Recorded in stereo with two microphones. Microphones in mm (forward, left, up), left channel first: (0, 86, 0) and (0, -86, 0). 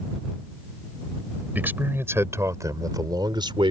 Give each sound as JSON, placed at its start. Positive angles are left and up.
{"t": 1.6, "sound": "a man speaking", "side_deg": -10}